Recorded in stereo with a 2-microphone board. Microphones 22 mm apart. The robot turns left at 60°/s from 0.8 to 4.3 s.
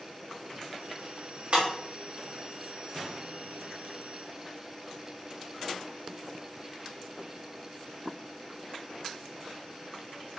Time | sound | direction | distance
1.5 | breaking glass | 65° right (ahead or behind) | 2.0 m